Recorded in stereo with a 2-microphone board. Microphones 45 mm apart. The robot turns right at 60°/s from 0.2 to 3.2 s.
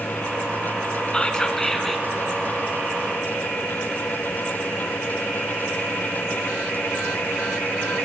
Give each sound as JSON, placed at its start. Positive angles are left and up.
{"t": 1.1, "sound": "whispering", "side_deg": 20, "distance_m": 1.2}